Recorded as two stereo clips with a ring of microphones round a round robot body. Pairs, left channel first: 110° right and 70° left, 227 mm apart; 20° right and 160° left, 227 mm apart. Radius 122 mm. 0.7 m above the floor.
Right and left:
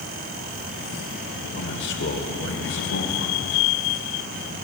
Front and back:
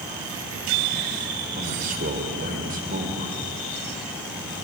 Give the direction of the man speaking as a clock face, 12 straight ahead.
5 o'clock.